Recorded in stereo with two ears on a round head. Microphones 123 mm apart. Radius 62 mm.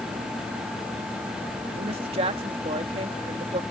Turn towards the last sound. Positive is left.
turn(degrees=-45)  # may be behind; listen again after turning